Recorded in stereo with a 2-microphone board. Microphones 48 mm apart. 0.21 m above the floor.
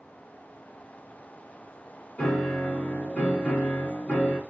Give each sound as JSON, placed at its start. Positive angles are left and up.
{"t": 2.2, "sound": "a piano", "side_deg": 35, "distance_m": 1.4}